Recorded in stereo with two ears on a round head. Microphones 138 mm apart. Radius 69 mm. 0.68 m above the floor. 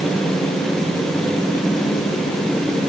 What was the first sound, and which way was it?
Only background noise.